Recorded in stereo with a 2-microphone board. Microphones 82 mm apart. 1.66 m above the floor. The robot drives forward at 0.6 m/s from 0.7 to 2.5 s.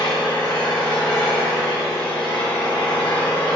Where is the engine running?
75° left (ahead or behind), 2 m; by 3.5 s 65° left (ahead or behind), 2 m.